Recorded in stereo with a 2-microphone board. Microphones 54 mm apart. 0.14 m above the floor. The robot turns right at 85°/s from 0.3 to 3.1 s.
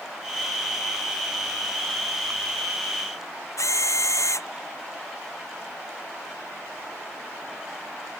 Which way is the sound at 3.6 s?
65° left (ahead or behind).